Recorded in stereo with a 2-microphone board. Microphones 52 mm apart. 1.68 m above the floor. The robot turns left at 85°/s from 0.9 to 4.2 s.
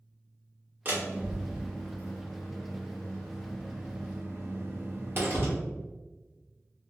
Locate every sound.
0.8 s a door slam: 30° right (ahead or behind), 1.1 m; by 5.5 s 40° right (ahead or behind), 1.1 m